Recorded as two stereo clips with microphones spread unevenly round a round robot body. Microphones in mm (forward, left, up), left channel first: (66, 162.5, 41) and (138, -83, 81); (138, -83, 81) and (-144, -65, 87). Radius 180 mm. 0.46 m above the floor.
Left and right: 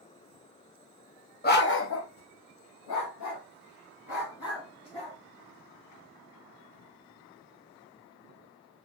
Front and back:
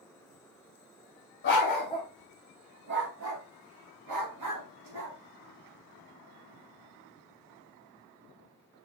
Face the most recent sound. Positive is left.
turn(degrees=155)